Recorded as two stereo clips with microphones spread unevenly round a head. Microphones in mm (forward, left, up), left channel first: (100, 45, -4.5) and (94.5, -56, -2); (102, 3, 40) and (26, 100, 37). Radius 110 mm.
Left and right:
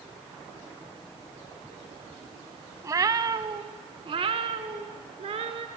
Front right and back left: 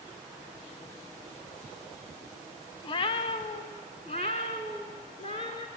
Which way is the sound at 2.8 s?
65° right.